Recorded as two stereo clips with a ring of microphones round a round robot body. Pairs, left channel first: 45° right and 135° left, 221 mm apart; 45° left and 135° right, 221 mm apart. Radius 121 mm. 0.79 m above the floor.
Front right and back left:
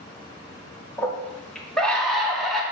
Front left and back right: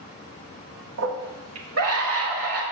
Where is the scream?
130° right, 1.7 m; by 2.6 s 135° right, 3 m.